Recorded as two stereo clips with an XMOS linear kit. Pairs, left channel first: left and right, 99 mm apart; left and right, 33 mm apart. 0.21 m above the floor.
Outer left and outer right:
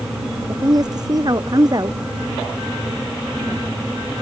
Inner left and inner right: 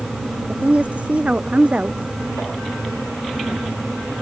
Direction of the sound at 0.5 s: 40° right (ahead or behind).